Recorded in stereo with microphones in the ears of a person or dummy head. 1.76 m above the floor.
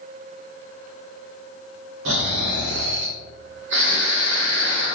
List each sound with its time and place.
2.0 s snoring: 80° right, 0.8 m